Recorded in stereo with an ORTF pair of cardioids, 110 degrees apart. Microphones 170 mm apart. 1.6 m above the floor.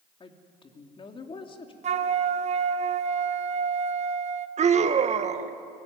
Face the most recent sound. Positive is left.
turn(degrees=-40)